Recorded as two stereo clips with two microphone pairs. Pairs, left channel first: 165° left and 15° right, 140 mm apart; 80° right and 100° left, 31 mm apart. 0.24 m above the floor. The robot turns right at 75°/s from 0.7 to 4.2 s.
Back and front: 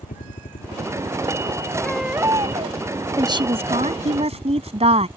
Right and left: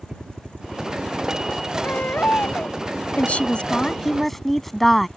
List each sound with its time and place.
0.0 s a helicopter: 150° left; by 5.2 s 55° left
1.8 s a baby crying: 115° right; by 2.8 s 45° right
3.2 s a woman speaking: 75° right; by 5.1 s 5° left